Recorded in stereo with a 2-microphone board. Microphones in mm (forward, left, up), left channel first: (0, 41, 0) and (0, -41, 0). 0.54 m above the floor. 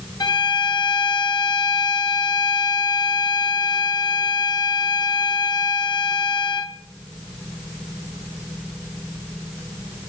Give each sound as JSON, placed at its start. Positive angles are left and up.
{"t": 0.2, "sound": "a violin", "side_deg": 60, "distance_m": 0.7}